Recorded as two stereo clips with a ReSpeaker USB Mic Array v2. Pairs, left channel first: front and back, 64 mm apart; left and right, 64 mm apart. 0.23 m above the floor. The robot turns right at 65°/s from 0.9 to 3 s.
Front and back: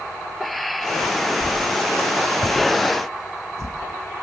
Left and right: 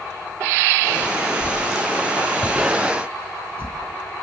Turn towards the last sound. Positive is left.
turn(degrees=-140)